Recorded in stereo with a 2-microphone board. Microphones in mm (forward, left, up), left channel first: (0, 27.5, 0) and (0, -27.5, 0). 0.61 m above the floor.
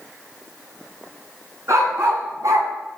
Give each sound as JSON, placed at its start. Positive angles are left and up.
{"t": 1.7, "sound": "a dog barking", "side_deg": -65, "distance_m": 1.9}